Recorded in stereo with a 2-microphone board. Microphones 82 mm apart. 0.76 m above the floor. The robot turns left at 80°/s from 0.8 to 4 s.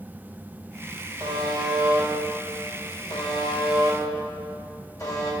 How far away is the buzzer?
About 3 m.